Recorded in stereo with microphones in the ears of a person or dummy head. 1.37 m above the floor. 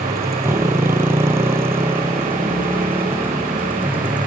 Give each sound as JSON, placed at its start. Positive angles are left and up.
{"t": 0.0, "sound": "a motorcycle", "side_deg": -15}